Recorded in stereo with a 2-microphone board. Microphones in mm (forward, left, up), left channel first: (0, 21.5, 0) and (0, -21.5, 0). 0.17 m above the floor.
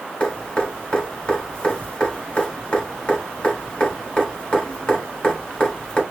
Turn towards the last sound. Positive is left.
turn(degrees=20)  # may be behind; listen again after turning